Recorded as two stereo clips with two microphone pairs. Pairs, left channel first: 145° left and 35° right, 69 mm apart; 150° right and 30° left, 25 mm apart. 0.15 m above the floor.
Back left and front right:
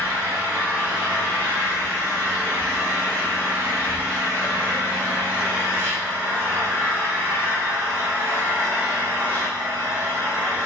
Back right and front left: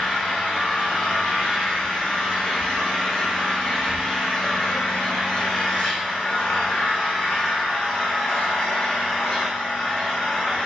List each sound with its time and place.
0.0 s an engine running: 90° right, 6.5 m